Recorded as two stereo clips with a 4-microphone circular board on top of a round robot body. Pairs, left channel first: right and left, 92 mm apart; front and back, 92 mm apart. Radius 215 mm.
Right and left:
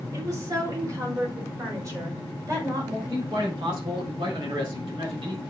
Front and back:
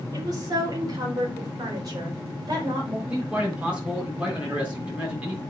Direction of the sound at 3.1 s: 105° left.